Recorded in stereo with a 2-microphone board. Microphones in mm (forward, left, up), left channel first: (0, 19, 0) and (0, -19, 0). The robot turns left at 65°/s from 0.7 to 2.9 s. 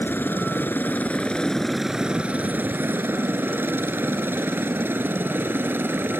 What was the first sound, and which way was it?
A helicopter, 60° left (ahead or behind).